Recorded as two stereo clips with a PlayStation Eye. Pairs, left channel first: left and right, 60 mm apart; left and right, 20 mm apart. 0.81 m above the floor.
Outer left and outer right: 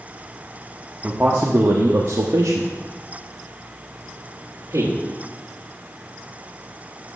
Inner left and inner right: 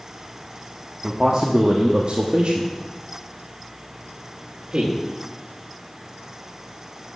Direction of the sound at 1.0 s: 25° right (ahead or behind).